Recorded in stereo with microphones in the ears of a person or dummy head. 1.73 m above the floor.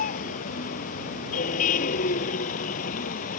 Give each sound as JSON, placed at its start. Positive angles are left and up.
{"t": 0.0, "sound": "a vehicle", "side_deg": 45}